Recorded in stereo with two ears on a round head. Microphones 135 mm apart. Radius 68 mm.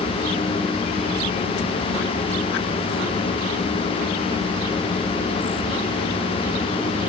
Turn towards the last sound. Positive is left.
No sound to turn to.